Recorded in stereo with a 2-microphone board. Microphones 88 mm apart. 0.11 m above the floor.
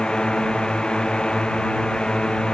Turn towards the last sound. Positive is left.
turn(degrees=10)  # may be behind; listen again after turning